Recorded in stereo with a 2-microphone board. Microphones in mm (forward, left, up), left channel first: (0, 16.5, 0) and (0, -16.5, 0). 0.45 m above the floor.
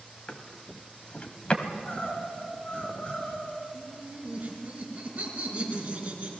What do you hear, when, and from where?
0.3 s a drawer: 35° left (ahead or behind), 1.5 m
1.6 s crying: 35° left (ahead or behind), 6 m
3.7 s laughter: 30° right (ahead or behind), 6.5 m